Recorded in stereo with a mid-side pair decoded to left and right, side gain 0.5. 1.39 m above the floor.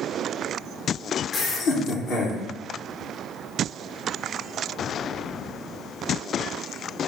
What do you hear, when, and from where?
1.3 s laughter: 60° left, 1.4 m; by 2.4 s 80° left, 2.5 m